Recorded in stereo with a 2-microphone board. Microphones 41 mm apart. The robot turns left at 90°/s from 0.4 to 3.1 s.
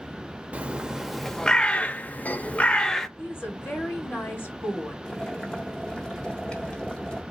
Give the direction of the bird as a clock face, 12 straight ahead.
4 o'clock.